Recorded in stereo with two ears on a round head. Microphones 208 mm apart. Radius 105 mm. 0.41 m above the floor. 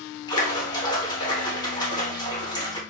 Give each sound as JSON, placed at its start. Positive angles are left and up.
{"t": 0.3, "sound": "a splash", "side_deg": 20, "distance_m": 1.1}